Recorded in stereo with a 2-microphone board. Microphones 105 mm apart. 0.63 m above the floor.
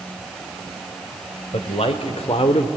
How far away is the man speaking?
About 2.5 m.